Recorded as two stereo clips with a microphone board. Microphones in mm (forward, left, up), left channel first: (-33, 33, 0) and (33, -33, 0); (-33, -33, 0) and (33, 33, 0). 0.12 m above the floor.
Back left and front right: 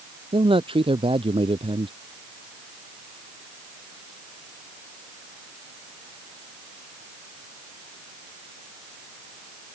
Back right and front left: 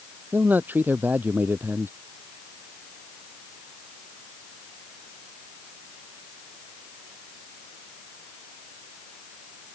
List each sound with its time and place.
0.3 s a man speaking: 25° right